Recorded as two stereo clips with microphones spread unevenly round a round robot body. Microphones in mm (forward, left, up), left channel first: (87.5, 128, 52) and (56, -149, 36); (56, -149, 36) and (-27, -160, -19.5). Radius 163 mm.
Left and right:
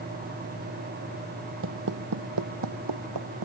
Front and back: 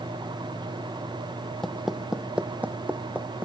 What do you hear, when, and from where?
1.6 s footsteps: 60° right; by 3.5 s 100° right